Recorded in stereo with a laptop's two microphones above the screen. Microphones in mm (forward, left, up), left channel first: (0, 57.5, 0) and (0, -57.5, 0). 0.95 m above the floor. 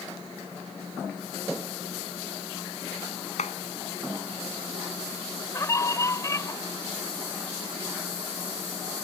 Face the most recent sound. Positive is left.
turn(degrees=25)  # may be behind; listen again after turning